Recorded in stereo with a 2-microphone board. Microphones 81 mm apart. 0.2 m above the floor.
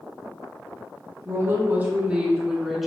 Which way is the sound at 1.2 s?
40° right (ahead or behind).